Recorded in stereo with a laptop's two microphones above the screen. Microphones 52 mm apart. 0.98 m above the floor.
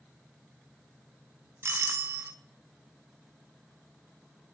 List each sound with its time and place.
1.6 s a doorbell: 55° right (ahead or behind), 1.8 m